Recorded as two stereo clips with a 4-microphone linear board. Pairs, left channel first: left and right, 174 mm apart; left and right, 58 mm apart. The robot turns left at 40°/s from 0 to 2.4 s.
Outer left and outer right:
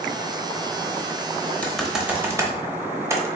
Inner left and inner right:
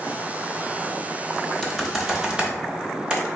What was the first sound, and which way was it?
Typing on a keyboard, 5° left (ahead or behind).